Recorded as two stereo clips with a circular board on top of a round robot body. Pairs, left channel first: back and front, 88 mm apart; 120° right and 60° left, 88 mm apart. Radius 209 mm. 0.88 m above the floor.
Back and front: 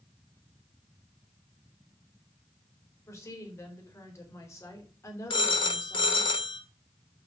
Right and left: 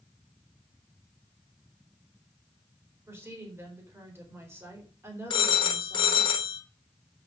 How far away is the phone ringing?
About 0.6 m.